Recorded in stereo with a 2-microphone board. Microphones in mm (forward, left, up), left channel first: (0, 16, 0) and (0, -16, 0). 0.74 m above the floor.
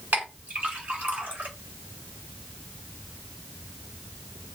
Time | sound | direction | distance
0.1 | a clink | 75° right (ahead or behind) | 1.7 m